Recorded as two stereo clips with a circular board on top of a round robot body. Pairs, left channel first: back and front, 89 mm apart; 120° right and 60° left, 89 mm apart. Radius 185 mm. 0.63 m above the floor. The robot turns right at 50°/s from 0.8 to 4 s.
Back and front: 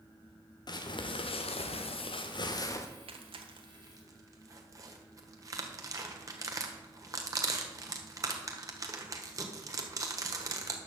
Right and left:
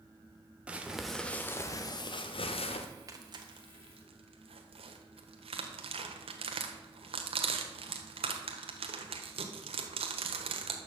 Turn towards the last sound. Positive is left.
turn(degrees=55)